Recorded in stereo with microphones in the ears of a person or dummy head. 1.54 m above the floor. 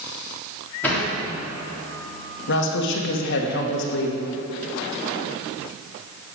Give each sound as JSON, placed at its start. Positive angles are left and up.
{"t": 0.8, "sound": "a sliding door", "side_deg": 5, "distance_m": 3.5}
{"t": 2.5, "sound": "a woman speaking", "side_deg": 60, "distance_m": 1.8}